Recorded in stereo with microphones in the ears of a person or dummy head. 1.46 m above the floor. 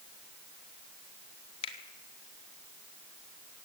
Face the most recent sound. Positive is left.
turn(degrees=35)  # may be behind; listen again after turning